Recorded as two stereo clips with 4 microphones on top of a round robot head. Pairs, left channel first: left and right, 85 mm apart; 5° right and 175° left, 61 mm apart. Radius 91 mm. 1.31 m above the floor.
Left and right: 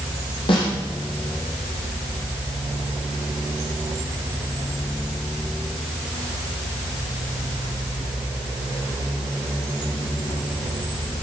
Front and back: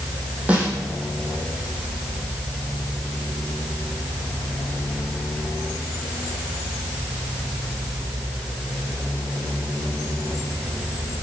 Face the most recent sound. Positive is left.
turn(degrees=110)